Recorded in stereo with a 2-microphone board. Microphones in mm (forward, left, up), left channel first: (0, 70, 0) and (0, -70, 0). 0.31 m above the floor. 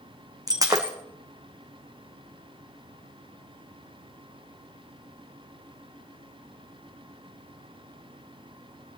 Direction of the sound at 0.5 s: 25° right (ahead or behind).